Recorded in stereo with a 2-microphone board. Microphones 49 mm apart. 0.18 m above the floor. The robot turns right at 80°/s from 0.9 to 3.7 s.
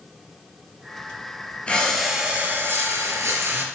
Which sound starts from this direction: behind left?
Breathing, at 1.7 s.